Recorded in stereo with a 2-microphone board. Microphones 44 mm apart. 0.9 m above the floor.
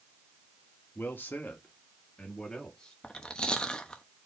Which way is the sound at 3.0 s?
20° left (ahead or behind).